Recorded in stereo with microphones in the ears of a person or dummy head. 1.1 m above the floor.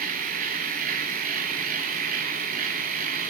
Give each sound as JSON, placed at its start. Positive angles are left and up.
{"t": 0.0, "sound": "a machine running", "side_deg": -50, "distance_m": 1.3}